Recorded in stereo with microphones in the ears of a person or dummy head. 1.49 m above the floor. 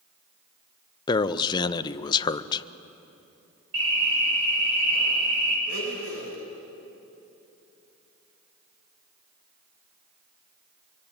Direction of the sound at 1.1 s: 30° left (ahead or behind).